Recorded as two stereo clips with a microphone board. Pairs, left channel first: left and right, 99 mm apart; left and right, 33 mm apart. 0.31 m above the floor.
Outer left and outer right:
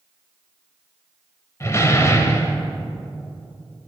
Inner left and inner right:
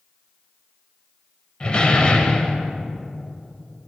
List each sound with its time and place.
1.6 s a door slam: 30° left (ahead or behind), 1.0 m